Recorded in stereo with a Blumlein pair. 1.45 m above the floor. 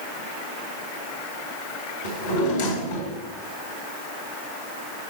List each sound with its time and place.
2.0 s a drawer: 55° left, 1.7 m